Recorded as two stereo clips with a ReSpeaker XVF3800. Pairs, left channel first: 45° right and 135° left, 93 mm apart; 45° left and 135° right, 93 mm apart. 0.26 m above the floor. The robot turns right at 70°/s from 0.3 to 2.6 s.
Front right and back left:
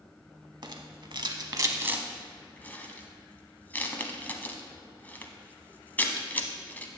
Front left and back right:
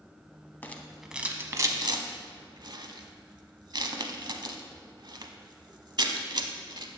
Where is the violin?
I don't hear a violin.